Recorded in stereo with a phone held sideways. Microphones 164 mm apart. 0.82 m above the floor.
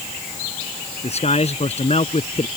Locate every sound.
1.0 s a man speaking: 40° left (ahead or behind)